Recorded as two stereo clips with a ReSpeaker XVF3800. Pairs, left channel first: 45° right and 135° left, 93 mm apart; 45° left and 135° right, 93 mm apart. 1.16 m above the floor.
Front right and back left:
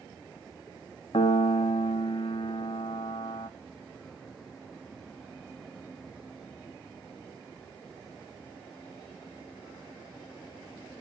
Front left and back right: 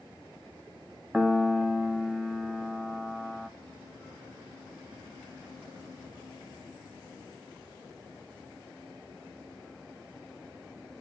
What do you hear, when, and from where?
1.1 s a piano: 50° right, 0.9 m